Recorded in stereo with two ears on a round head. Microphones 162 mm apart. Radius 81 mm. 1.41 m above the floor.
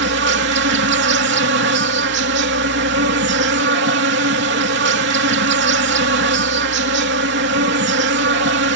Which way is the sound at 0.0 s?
60° right (ahead or behind).